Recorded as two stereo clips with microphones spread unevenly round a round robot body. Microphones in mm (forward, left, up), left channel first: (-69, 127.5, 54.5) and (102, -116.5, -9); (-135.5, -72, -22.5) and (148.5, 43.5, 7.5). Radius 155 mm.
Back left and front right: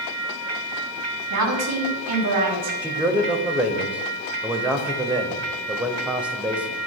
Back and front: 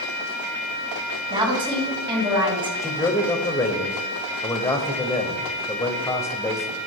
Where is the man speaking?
105° right, 0.9 m.